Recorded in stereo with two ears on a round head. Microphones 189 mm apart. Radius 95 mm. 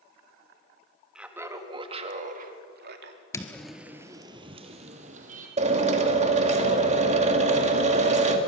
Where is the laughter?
5° right (ahead or behind), 1.9 m; by 3.2 s 55° right (ahead or behind), 3 m.